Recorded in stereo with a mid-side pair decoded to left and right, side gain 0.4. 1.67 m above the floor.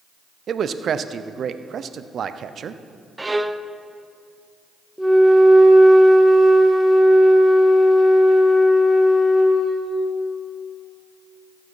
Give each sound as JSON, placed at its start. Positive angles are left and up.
{"t": 0.5, "sound": "a man speaking", "azimuth_deg": -60, "distance_m": 0.6}
{"t": 3.2, "sound": "a violin", "azimuth_deg": -20, "distance_m": 0.5}
{"t": 5.0, "sound": "a flute", "azimuth_deg": -5, "distance_m": 1.5}